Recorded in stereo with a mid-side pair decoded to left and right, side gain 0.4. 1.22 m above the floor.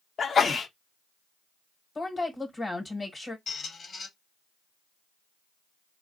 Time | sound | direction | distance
0.2 | a sneeze | 50° left | 0.8 m
1.9 | a woman speaking | 30° left | 1.1 m
3.5 | a squeak | 50° left | 1.1 m